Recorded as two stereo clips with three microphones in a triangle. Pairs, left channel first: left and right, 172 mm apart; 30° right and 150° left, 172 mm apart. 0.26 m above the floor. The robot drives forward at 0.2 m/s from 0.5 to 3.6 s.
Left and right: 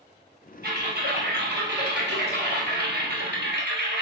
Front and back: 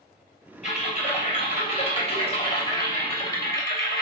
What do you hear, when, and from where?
0.6 s typing on a keyboard: 75° right, 1.5 m; by 4.0 s 100° right, 1.4 m